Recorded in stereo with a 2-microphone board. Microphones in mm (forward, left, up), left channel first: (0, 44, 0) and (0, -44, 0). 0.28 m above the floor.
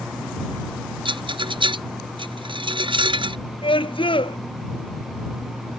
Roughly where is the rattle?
Right.